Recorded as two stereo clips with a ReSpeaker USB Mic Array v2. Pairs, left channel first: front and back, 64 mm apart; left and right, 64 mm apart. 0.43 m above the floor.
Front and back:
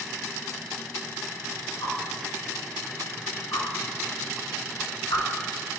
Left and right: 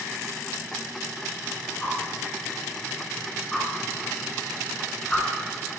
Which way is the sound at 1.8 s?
10° left.